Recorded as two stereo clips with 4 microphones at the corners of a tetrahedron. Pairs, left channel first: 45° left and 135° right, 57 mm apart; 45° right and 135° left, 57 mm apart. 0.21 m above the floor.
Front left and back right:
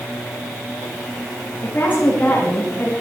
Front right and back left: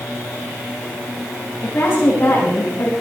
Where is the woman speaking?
10° right, 8 m; by 2.9 s 15° right, 6.5 m.